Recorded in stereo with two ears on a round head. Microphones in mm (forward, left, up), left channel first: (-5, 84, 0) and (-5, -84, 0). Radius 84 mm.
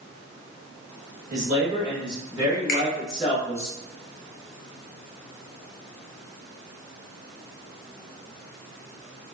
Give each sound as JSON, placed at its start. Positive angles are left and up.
{"t": 1.3, "sound": "a man speaking", "side_deg": -40, "distance_m": 1.4}
{"t": 2.7, "sound": "a finger snap", "side_deg": 45, "distance_m": 1.0}